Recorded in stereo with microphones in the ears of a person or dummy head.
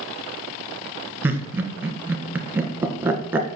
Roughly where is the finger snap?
No finger snap in this recording.